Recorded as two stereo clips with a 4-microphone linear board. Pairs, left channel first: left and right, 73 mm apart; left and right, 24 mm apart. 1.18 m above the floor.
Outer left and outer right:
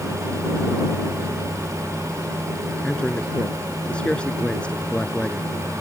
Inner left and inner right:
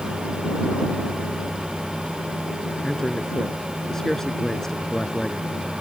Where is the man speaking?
15° left (ahead or behind).